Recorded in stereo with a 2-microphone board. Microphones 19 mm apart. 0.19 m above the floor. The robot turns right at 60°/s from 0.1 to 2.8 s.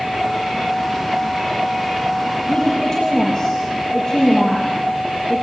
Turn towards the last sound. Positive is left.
turn(degrees=30)  # may be behind; listen again after turning